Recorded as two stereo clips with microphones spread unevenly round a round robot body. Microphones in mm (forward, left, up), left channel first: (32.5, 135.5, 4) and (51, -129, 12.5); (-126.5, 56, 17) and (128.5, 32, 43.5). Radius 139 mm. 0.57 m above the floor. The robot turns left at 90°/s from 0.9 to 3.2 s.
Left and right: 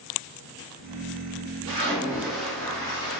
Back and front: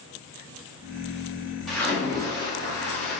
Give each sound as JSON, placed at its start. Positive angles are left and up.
{"t": 1.7, "sound": "a splash", "azimuth_deg": -115, "distance_m": 1.1}